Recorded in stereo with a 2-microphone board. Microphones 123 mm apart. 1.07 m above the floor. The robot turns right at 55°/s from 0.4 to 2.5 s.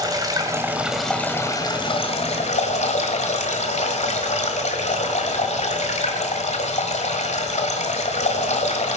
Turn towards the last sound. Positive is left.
turn(degrees=85)